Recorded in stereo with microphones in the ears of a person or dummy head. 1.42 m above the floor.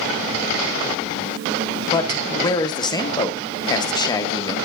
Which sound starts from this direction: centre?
A man speaking, at 1.9 s.